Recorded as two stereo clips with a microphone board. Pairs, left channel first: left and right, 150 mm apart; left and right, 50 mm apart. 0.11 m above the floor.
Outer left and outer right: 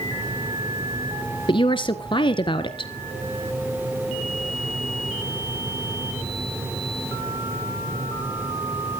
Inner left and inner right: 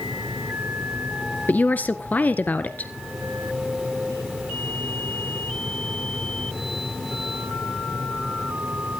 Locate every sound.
1.5 s a woman speaking: 35° left (ahead or behind), 1.4 m